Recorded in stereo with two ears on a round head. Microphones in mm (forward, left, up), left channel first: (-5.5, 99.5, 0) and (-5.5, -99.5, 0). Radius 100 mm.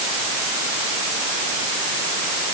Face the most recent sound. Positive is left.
No sound to turn to.